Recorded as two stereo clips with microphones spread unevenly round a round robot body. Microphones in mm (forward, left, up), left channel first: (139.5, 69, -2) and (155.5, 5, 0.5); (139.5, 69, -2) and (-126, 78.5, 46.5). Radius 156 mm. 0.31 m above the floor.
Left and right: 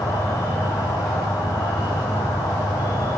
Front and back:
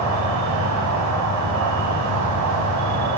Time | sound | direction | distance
0.0 | an insect | 155° left | 1.2 m